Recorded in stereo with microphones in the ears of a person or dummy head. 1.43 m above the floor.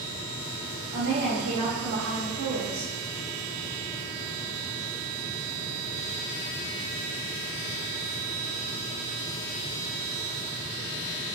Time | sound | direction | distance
0.9 | a woman speaking | 70° right (ahead or behind) | 1.7 m